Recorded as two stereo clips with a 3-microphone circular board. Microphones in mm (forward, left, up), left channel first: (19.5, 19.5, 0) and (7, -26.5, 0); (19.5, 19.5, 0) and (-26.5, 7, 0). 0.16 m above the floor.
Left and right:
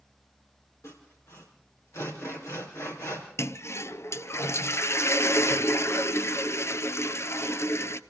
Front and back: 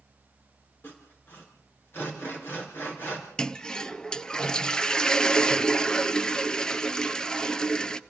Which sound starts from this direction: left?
A toilet flushing, at 3.4 s.